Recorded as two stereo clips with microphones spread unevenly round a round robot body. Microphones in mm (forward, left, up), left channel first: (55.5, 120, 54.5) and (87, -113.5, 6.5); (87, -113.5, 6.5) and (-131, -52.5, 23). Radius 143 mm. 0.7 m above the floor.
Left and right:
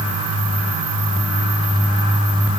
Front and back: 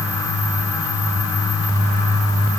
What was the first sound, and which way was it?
Only background noise.